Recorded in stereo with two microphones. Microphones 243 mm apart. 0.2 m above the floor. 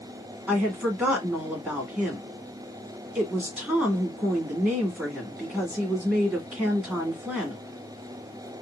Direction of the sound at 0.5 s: 5° right (ahead or behind).